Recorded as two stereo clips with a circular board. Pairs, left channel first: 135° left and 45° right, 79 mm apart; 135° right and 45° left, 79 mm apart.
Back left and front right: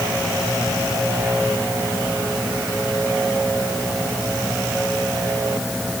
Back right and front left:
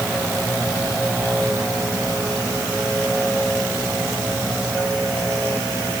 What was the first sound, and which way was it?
Only background noise.